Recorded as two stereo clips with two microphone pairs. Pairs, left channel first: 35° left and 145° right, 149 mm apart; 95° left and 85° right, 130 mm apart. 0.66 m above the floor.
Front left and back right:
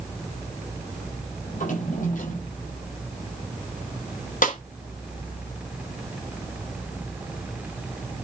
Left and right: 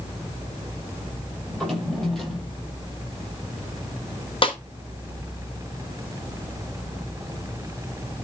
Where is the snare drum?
55° left, 3 m.